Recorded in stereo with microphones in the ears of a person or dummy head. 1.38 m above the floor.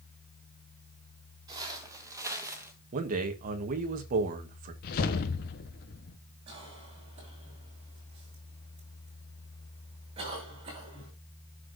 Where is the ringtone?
I don't hear a ringtone.